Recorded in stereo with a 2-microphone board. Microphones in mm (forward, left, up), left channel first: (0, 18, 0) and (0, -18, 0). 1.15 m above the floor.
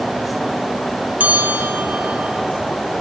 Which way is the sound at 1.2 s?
50° right (ahead or behind).